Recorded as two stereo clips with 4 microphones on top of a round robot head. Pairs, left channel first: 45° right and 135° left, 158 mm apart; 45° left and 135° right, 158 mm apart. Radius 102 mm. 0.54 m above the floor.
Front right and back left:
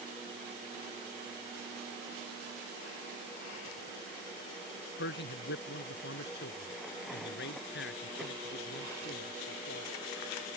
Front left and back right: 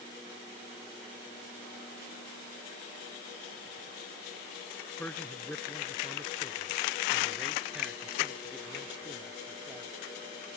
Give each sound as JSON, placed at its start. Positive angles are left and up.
{"t": 5.0, "sound": "a man speaking", "azimuth_deg": -35}